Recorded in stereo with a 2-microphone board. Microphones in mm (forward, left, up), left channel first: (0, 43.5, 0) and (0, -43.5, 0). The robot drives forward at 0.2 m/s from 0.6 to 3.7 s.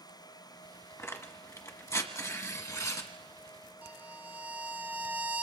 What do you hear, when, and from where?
1.0 s tearing paper: 30° left (ahead or behind), 1.5 m; by 3.1 s 40° left (ahead or behind), 1.3 m
3.8 s a violin: 20° right (ahead or behind), 1.2 m